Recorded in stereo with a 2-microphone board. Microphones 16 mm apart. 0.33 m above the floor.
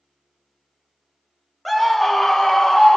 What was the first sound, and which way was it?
A scream, 10° left (ahead or behind).